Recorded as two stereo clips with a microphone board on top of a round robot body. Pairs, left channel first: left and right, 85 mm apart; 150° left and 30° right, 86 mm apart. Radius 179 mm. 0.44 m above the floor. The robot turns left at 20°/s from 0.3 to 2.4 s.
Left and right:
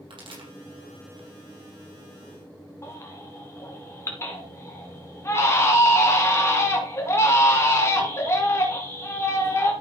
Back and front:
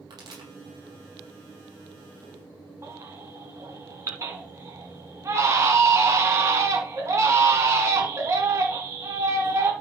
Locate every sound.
0.1 s a pop: 70° right, 4.5 m; by 0.5 s 75° right, 4.5 m
2.8 s a baby crying: 30° left, 1.9 m